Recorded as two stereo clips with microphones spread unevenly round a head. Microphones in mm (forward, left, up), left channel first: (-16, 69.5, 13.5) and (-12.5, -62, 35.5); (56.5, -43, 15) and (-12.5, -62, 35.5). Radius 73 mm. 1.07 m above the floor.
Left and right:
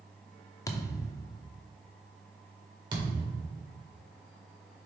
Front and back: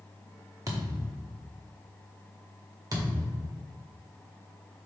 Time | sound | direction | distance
0.7 | a thud | 165° left | 0.8 m
2.9 | a thud | 140° right | 1.8 m